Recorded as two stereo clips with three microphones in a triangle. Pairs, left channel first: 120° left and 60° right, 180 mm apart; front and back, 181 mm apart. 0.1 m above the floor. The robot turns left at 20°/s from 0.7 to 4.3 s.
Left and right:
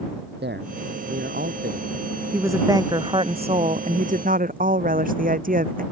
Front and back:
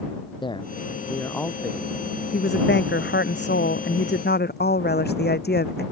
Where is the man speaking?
65° right; by 1.9 s 85° right.